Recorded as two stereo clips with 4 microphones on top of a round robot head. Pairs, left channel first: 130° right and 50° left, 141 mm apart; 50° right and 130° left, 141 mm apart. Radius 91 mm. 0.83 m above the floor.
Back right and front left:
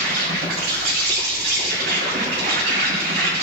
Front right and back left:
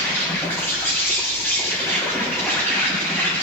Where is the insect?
25° left, 7.5 m.